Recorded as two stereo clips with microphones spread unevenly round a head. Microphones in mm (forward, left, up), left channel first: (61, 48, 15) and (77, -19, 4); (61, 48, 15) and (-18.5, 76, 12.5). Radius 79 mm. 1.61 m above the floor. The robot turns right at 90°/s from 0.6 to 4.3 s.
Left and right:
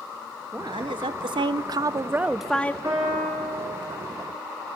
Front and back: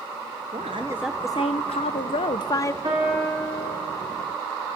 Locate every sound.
0.5 s a woman speaking: 150° right, 1.0 m; by 2.7 s 40° left, 1.0 m
2.8 s a piano: 145° right, 5.5 m; by 3.8 s 65° right, 5.5 m